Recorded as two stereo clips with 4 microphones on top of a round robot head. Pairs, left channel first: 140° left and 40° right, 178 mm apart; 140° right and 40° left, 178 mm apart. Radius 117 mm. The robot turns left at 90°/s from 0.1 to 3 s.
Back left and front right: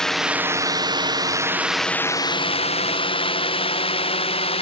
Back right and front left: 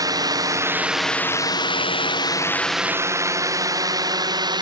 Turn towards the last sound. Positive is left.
turn(degrees=95)